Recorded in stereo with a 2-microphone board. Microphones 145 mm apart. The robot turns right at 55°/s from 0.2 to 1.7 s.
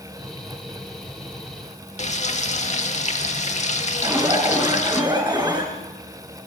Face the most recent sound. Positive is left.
turn(degrees=-25)  # may be behind; listen again after turning